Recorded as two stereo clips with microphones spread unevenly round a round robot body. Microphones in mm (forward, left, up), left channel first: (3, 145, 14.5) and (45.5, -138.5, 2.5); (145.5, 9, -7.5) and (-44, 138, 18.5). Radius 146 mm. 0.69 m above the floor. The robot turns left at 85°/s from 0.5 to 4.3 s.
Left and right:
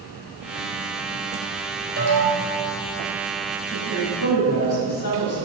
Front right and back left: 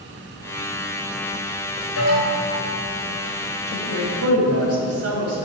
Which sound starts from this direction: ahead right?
An alarm, at 2.0 s.